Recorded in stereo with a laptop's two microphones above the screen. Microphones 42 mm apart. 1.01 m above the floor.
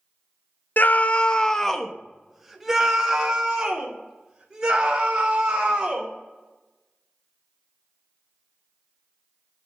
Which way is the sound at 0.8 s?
50° left (ahead or behind).